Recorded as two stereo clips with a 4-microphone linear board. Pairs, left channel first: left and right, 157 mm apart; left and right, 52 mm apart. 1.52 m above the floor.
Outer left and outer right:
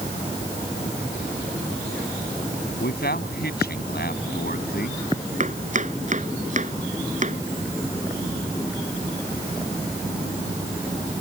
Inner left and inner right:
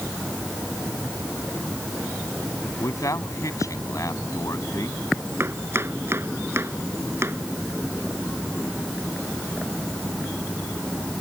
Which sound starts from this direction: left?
A man speaking, at 2.8 s.